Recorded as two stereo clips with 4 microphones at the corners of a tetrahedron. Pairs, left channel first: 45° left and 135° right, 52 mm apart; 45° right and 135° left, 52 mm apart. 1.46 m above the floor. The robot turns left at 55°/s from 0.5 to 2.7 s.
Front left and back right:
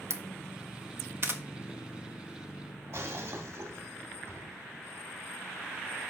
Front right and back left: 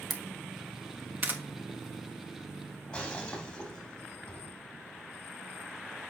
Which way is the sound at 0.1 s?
135° right.